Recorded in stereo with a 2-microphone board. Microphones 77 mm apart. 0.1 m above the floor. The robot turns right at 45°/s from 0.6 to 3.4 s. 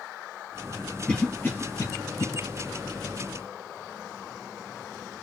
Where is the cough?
10° left (ahead or behind), 2.5 m; by 2.3 s 45° left (ahead or behind), 2.5 m.